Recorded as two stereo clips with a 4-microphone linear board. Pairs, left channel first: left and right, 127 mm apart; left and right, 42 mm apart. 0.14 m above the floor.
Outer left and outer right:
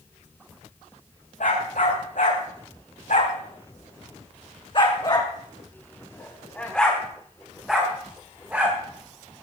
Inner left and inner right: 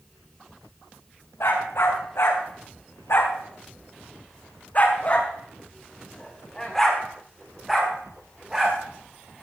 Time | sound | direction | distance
1.4 | a dog barking | 80° left | 6 m